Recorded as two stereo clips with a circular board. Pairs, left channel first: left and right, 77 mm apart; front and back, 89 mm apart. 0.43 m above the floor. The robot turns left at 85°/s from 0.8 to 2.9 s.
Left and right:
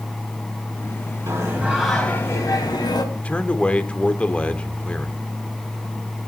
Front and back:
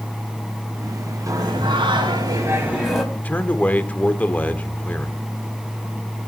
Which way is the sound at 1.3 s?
130° right.